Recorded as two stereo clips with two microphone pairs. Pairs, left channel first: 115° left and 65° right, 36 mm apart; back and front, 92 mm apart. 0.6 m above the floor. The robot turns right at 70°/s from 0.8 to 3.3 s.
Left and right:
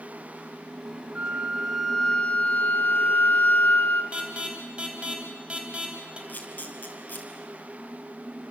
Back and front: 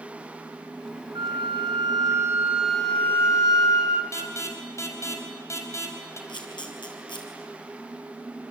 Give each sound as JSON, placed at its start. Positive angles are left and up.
{"t": 1.1, "sound": "a flute", "azimuth_deg": -20, "distance_m": 2.0}
{"t": 4.1, "sound": "an alarm", "azimuth_deg": -125, "distance_m": 4.0}
{"t": 6.3, "sound": "a camera shutter", "azimuth_deg": 150, "distance_m": 5.0}